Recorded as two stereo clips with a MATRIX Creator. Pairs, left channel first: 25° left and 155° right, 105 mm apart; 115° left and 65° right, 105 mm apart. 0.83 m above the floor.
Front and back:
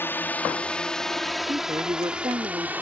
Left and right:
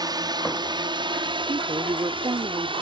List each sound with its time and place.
0.0 s a drone: 40° right; by 2.8 s 85° right
1.5 s a woman speaking: 110° right